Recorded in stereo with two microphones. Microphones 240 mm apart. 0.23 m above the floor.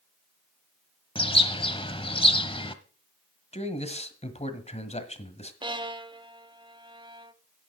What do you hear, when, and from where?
1.1 s a bird: 20° left (ahead or behind), 0.9 m
3.5 s a man speaking: 30° left (ahead or behind), 1.5 m
5.6 s a violin: 20° right (ahead or behind), 0.6 m